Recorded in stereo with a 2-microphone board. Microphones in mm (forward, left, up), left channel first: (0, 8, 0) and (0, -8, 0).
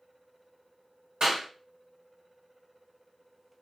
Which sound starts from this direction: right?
A clap, at 1.2 s.